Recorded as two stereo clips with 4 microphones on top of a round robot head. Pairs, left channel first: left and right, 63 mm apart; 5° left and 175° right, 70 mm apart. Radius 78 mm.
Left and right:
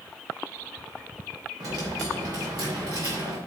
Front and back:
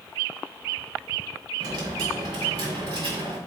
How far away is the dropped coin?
About 2.5 m.